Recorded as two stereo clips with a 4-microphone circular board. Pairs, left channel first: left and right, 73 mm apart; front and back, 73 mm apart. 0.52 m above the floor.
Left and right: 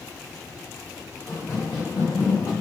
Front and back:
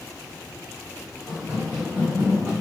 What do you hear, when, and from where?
1.3 s running footsteps: 110° left, 2.0 m; by 2.5 s 130° left, 1.4 m